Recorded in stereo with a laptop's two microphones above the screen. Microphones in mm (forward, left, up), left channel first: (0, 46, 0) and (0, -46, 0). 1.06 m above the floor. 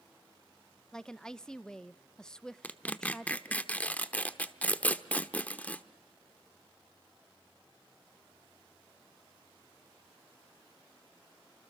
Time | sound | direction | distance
0.9 | a woman speaking | 10° left (ahead or behind) | 0.7 m
2.6 | tearing paper | 15° left (ahead or behind) | 0.9 m